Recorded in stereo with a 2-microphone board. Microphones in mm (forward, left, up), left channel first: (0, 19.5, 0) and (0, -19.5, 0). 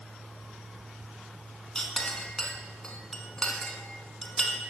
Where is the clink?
15° left (ahead or behind), 0.6 m.